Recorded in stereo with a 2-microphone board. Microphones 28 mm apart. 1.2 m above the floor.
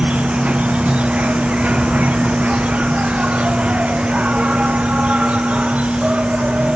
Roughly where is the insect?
Right.